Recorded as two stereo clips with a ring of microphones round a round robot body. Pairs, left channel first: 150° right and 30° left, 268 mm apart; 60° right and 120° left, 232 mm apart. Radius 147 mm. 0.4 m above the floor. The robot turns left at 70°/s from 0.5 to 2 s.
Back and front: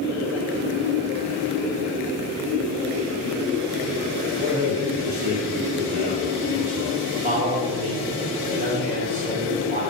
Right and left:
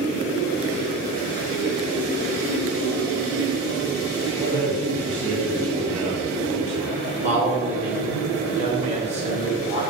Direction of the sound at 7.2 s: 75° left.